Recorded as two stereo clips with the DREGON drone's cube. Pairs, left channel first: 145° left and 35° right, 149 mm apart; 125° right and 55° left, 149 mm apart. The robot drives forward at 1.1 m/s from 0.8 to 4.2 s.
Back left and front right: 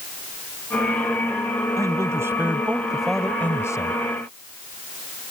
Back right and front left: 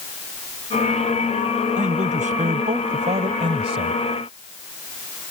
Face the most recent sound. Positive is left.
turn(degrees=105)